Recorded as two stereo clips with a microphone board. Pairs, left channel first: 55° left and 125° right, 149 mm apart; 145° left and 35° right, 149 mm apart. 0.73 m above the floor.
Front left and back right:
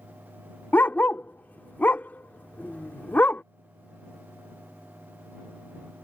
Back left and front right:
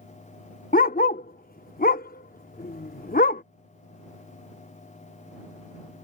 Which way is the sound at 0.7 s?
135° left.